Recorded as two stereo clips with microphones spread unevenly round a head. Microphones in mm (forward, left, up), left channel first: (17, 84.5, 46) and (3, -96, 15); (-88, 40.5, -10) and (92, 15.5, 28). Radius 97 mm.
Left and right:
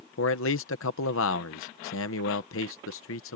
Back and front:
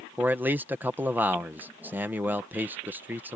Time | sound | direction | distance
0.2 | a man speaking | 70° left | ?